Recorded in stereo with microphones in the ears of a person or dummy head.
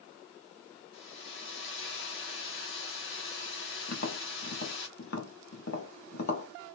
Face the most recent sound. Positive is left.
turn(degrees=65)  # may be behind; listen again after turning